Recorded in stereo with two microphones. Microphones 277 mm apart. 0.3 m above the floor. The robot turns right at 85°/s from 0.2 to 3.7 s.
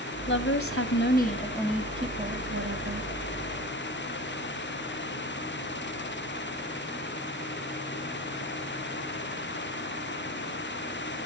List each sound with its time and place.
0.3 s a woman speaking: 60° left, 1.9 m; by 3.1 s 65° right, 1.9 m